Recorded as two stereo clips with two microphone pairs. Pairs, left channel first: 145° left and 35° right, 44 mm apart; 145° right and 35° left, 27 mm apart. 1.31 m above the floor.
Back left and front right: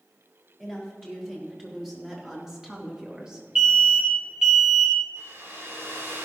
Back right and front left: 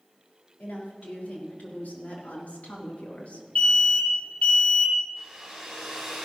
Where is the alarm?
110° right, 2 m.